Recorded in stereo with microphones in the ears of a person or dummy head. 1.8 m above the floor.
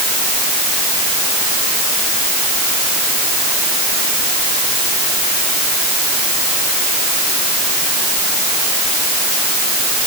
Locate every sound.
Only background noise.